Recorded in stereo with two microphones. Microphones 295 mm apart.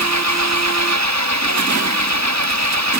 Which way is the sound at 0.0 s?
65° right (ahead or behind).